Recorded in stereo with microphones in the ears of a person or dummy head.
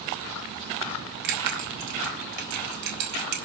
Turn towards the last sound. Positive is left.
turn(degrees=-70)  # may be behind; listen again after turning